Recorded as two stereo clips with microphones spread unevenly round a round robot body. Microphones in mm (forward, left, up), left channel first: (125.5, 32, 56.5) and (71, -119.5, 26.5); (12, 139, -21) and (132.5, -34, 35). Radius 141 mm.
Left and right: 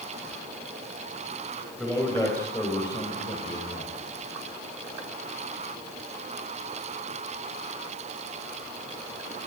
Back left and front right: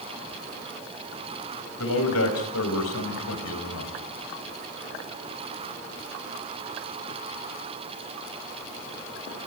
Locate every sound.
1.8 s a man speaking: 160° left, 5.5 m; by 3.9 s 130° left, 4.5 m